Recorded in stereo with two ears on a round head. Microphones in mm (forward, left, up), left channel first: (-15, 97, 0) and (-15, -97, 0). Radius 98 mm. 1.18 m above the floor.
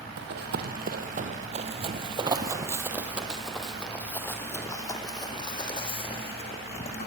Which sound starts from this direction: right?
Running footsteps, at 0.2 s.